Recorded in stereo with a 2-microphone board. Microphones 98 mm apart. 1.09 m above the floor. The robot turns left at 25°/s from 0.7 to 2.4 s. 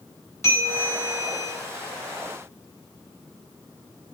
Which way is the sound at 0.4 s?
30° left (ahead or behind).